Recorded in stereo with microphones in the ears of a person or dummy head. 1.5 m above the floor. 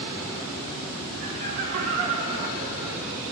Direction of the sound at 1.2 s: 45° right (ahead or behind).